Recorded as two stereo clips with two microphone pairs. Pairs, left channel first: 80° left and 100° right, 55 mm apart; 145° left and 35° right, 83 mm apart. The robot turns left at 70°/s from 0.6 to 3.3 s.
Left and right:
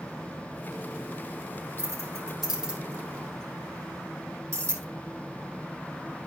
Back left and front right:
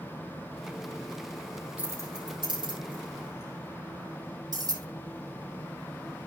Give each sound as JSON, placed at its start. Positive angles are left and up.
{"t": 1.8, "sound": "keys jangling", "azimuth_deg": 30, "distance_m": 3.5}